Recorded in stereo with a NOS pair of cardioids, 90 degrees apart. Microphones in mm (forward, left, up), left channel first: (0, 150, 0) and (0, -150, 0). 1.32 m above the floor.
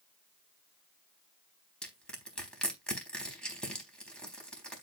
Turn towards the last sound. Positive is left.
turn(degrees=5)